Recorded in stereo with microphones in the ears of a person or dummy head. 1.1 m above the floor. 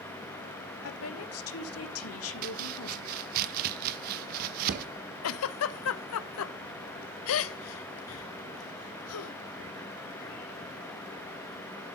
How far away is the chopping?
About 0.7 m.